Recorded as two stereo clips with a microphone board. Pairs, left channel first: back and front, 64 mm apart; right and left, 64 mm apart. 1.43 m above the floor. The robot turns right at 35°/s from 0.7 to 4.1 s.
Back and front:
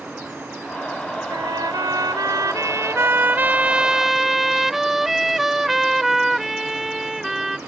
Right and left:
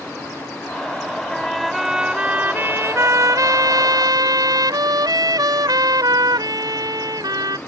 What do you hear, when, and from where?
1.3 s a trumpet: 10° right; by 7.6 s 85° left